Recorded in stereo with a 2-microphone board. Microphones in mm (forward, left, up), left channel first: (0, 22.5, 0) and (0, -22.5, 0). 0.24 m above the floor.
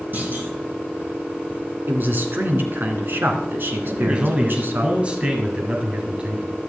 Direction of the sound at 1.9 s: 50° right (ahead or behind).